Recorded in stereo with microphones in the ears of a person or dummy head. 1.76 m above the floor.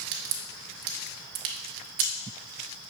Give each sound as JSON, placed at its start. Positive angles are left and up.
{"t": 0.1, "sound": "a crack", "side_deg": -65, "distance_m": 0.7}